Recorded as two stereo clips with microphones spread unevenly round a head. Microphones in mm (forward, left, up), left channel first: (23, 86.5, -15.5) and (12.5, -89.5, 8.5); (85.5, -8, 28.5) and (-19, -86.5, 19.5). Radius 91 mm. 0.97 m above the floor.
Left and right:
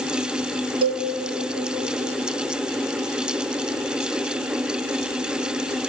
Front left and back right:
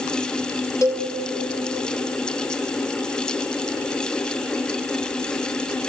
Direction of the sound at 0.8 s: 30° right.